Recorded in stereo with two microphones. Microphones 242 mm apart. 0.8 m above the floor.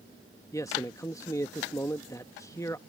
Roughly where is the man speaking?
Centre.